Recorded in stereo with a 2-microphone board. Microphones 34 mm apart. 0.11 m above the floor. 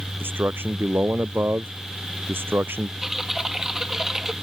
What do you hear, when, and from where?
0.2 s a man speaking: 80° right
3.0 s typing on a keyboard: 15° right (ahead or behind)